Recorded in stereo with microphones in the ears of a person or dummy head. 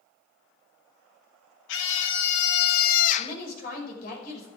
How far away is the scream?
About 1.9 m.